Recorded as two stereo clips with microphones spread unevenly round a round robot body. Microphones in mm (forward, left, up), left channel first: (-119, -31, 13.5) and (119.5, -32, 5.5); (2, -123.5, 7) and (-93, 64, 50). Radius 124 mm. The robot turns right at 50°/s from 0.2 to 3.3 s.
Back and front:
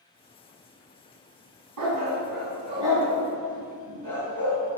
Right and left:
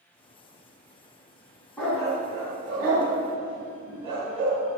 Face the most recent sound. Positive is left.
turn(degrees=100)